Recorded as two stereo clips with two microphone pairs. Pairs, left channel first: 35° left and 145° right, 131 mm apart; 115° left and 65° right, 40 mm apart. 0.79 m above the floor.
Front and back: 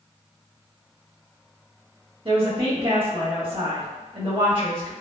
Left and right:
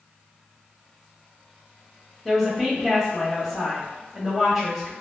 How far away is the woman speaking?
About 1.2 m.